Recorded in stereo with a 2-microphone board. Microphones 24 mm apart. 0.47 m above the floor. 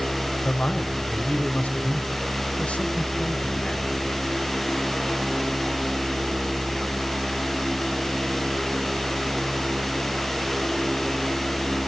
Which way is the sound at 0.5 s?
60° left (ahead or behind).